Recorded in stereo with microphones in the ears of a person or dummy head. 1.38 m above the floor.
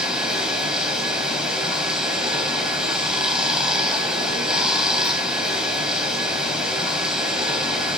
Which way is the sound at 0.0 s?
Centre (ahead or behind).